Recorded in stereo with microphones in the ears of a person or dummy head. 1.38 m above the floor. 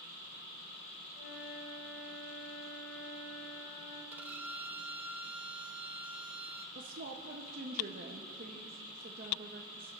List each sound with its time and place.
1.1 s a flute: 65° left (ahead or behind), 6.5 m
4.1 s a violin: 5° right (ahead or behind), 0.7 m
6.8 s a woman speaking: 50° right (ahead or behind), 1.0 m